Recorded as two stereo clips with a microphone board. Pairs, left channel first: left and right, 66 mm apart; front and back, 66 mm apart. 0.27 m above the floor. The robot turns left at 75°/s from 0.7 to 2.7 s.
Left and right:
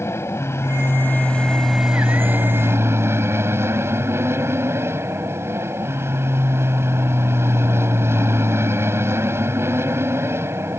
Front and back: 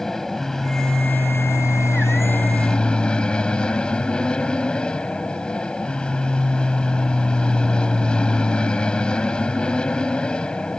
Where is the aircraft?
80° left; by 10.8 s 70° right.